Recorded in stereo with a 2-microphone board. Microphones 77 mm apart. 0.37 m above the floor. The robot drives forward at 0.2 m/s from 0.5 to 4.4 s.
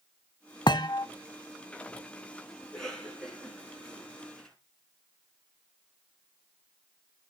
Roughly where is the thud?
Left.